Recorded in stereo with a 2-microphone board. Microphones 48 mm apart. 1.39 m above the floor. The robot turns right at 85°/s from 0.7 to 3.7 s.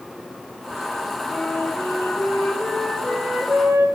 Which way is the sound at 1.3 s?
25° left.